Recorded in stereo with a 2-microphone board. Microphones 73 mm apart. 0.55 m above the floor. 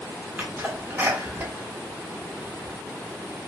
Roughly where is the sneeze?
Right.